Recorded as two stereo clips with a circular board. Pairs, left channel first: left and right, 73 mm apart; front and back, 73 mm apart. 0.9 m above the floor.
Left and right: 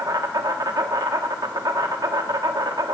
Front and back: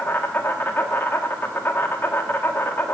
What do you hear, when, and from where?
0.0 s an insect: 60° right, 1.0 m